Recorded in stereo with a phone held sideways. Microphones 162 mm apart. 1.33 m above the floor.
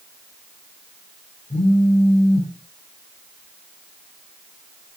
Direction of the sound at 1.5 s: 50° left (ahead or behind).